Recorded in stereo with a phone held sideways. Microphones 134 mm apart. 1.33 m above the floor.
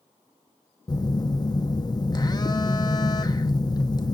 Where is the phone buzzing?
30° left (ahead or behind), 0.7 m.